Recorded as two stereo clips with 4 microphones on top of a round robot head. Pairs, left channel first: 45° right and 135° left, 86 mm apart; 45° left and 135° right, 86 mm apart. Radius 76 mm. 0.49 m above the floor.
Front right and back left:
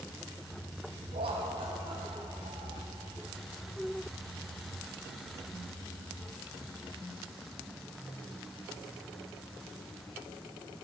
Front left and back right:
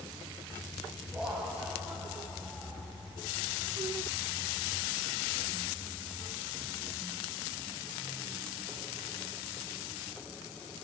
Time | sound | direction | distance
1.1 | laughter | 145° left | 4 m